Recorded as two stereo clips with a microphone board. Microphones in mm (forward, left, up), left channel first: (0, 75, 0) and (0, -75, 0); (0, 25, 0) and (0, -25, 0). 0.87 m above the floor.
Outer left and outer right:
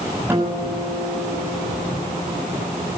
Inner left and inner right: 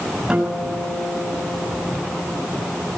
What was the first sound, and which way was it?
A guitar, 15° right (ahead or behind).